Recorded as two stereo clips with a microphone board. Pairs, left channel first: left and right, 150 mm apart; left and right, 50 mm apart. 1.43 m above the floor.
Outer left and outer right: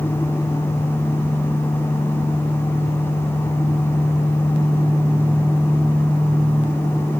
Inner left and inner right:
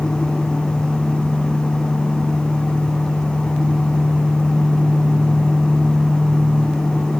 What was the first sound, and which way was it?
Only background noise.